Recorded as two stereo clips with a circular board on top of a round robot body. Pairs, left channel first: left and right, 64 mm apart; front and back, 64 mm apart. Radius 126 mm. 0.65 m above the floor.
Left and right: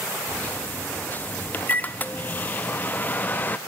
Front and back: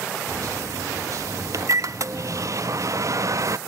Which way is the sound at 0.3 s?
150° left.